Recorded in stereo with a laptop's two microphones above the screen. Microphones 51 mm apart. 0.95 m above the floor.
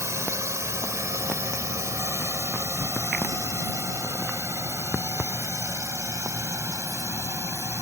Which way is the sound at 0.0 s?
75° right (ahead or behind).